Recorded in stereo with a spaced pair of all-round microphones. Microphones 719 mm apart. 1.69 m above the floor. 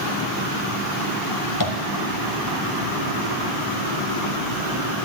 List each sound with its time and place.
1.6 s tapping: 30° left (ahead or behind), 1.6 m